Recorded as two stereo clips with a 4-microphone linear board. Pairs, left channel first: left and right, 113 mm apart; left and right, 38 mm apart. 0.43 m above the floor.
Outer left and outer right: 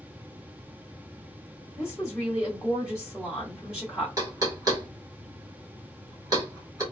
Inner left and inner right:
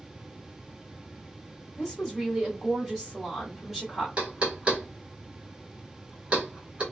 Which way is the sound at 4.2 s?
30° right (ahead or behind).